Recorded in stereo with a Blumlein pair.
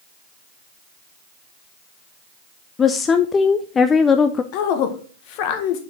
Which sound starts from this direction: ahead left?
A woman speaking, at 4.5 s.